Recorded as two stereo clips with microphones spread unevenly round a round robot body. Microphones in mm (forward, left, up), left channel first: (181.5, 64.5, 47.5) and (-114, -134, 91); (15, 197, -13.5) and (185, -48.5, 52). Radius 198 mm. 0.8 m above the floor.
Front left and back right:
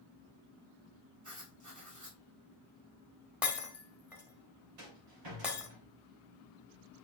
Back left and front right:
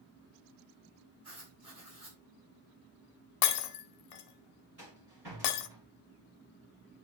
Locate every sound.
1.2 s writing: 105° right, 6 m
3.4 s breaking glass: 130° left, 0.8 m
4.8 s a rattle: 120° right, 3.5 m